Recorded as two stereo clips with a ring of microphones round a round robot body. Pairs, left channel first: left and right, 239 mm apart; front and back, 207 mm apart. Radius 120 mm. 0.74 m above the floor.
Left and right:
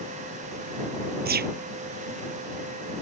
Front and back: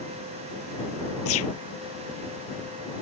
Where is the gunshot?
35° right.